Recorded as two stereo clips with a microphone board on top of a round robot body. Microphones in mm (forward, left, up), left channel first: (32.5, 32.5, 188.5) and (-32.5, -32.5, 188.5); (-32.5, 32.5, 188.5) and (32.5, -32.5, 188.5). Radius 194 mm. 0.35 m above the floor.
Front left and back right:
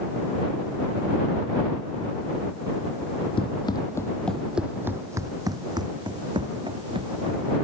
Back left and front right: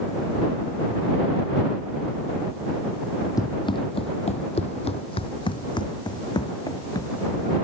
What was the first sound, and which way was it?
Running footsteps, 80° left.